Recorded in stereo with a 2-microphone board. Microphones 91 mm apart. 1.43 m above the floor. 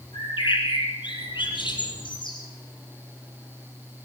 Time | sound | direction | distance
0.1 | a bird | 60° left (ahead or behind) | 7.5 m